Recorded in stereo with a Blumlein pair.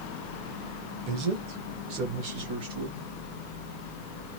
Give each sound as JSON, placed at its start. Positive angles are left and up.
{"t": 1.1, "sound": "a man speaking", "azimuth_deg": -35, "distance_m": 1.1}